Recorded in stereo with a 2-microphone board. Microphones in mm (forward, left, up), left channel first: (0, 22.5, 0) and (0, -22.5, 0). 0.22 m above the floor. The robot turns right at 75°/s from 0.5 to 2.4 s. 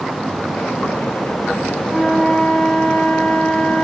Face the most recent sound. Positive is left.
turn(degrees=20)